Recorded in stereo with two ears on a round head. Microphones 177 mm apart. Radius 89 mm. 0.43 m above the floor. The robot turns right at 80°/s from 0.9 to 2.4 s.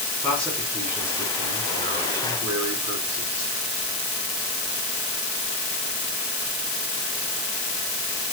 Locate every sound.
0.2 s a man speaking: 170° left, 4.5 m; by 3.5 s 70° right, 4.5 m